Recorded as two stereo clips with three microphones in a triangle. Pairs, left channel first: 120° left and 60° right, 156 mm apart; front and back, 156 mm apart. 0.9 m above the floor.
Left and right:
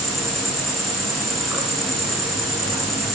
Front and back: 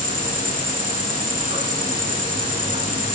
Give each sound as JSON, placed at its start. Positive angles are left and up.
{"t": 0.0, "sound": "an insect", "azimuth_deg": -150, "distance_m": 6.5}